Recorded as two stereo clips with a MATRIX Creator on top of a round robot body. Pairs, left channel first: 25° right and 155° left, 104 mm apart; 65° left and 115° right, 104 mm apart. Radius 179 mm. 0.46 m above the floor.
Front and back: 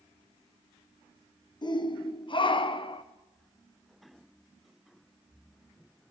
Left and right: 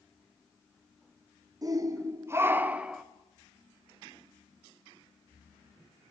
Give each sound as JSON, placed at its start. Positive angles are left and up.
{"t": 1.6, "sound": "a shout", "azimuth_deg": -60, "distance_m": 1.7}